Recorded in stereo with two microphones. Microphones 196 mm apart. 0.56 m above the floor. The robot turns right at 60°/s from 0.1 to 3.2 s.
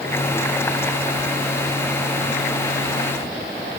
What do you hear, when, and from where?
Only background noise.